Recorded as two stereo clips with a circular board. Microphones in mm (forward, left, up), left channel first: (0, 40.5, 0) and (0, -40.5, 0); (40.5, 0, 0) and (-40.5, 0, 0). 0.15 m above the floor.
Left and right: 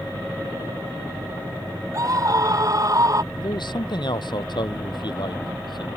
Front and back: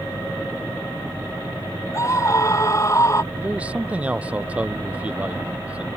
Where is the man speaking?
105° left.